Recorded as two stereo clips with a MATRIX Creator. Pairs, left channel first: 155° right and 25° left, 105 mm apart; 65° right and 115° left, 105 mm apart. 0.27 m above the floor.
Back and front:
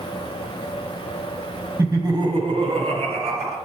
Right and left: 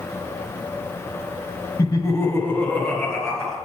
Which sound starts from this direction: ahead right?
Laughter, at 1.8 s.